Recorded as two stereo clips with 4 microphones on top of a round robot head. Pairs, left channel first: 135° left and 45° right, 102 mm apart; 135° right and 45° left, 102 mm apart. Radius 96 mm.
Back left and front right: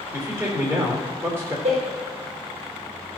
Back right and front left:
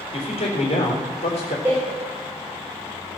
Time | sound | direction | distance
0.1 | a man speaking | 110° right | 3.5 m
1.6 | a door slam | 30° right | 4.5 m